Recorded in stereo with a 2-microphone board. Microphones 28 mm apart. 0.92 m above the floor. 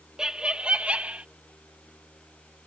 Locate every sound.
0.2 s laughter: 25° right (ahead or behind); by 1.2 s 55° right (ahead or behind)